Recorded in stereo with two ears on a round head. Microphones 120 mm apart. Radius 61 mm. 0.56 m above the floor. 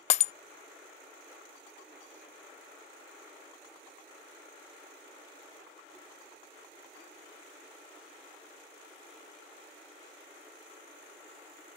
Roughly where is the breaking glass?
Left.